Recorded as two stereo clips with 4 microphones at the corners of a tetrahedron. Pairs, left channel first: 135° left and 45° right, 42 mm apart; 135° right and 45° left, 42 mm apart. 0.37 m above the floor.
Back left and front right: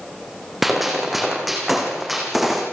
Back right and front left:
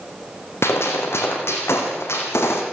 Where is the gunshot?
130° right, 4.5 m.